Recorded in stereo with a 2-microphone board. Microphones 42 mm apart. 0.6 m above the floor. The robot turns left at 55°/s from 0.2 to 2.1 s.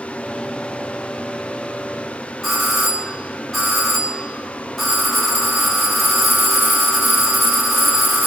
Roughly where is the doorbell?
Centre.